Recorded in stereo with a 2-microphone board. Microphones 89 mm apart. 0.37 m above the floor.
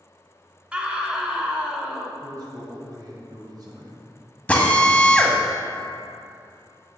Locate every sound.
0.7 s a scream: 15° right (ahead or behind), 1.0 m
2.2 s a man speaking: 50° right (ahead or behind), 1.7 m
4.5 s a drill: 15° left (ahead or behind), 1.1 m